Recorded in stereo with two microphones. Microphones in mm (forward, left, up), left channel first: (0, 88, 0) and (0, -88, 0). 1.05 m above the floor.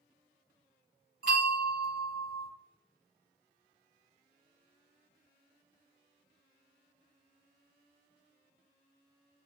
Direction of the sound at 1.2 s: 55° right (ahead or behind).